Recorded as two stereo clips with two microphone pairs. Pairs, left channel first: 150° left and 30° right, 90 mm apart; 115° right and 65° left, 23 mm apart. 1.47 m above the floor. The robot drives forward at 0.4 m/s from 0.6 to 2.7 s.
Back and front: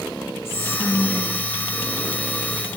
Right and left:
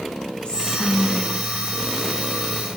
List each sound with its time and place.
0.5 s whispering: 150° right, 1.4 m; by 2.7 s 160° right, 2 m